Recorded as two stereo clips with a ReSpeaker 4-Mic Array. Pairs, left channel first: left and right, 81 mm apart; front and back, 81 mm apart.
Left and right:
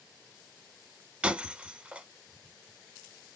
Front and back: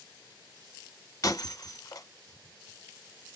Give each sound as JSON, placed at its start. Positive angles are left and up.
{"t": 1.2, "sound": "breaking glass", "azimuth_deg": -20, "distance_m": 0.7}